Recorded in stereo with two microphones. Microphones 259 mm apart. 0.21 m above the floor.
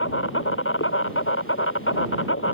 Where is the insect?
55° left (ahead or behind).